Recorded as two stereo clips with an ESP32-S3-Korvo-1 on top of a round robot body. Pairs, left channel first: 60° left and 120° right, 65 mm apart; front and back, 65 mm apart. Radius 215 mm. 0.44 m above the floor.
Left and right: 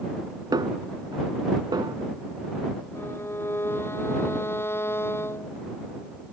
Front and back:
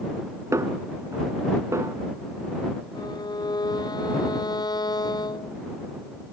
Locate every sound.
0.5 s a snare drum: 135° right
3.0 s a violin: 5° left